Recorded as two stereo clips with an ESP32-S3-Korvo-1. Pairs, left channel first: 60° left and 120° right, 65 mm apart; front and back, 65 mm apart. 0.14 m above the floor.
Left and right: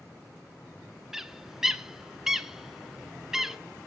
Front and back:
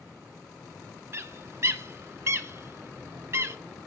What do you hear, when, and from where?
1.1 s a bird: 160° left, 0.6 m